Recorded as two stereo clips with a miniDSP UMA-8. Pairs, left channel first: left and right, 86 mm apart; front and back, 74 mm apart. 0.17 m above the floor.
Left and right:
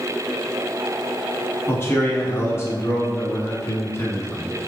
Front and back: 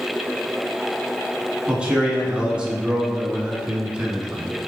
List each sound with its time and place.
1.7 s a man speaking: 115° left, 1.2 m